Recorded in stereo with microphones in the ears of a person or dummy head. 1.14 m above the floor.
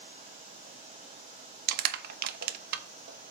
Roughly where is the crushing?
Right.